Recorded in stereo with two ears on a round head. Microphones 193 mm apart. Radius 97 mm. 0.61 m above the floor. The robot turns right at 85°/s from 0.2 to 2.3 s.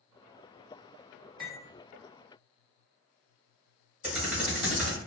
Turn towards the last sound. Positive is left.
turn(degrees=-5)  # may be behind; listen again after turning